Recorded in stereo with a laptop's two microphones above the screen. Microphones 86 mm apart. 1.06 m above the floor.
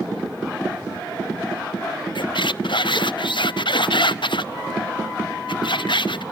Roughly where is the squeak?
Left.